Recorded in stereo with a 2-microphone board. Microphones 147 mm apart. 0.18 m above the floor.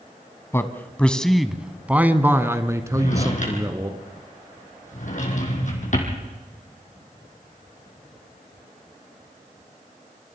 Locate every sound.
0.5 s a man speaking: 20° left (ahead or behind), 1.1 m; by 3.9 s 25° right (ahead or behind), 2 m
2.9 s a drawer: 60° left (ahead or behind), 4 m